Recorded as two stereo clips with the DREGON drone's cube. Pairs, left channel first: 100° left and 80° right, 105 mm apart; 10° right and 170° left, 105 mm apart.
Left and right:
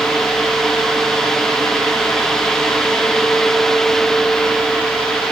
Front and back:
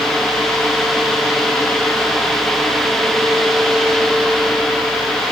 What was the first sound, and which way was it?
Only background noise.